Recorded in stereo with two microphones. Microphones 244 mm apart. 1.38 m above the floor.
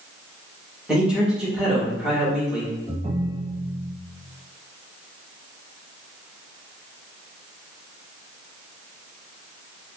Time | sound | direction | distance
0.9 | a man speaking | 5° right (ahead or behind) | 1.9 m
2.9 | a ringtone | 25° right (ahead or behind) | 0.9 m